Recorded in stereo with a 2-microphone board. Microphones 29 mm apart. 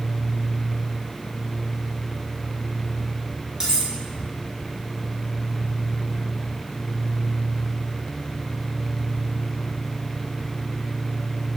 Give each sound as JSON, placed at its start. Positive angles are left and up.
{"t": 3.6, "sound": "cutlery clinking", "side_deg": -25, "distance_m": 2.0}